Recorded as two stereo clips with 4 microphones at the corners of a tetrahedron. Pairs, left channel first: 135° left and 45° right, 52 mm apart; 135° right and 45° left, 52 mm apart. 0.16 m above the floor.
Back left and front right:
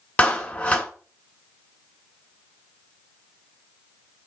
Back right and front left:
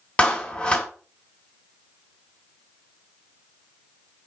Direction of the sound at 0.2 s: 170° left.